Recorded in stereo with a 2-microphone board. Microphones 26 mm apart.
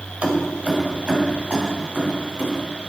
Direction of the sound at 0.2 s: 60° right (ahead or behind).